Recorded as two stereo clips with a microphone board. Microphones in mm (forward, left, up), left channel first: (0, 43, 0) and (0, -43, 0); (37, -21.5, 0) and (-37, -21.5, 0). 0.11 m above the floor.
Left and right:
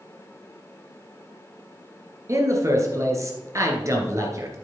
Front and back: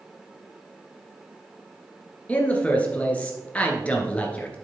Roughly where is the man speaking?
Ahead right.